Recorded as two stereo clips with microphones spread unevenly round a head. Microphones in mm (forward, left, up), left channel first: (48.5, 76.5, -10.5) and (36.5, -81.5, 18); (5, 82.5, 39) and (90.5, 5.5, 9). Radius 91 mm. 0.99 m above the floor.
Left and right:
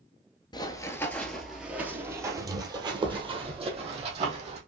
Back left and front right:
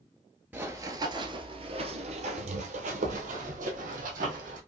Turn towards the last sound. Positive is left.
turn(degrees=-55)